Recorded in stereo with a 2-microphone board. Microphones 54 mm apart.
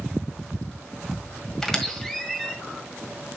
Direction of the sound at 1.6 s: 10° left (ahead or behind).